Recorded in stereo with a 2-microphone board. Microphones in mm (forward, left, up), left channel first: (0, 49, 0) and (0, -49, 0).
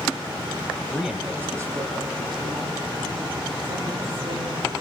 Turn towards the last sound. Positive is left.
turn(degrees=-60)  # may be behind; listen again after turning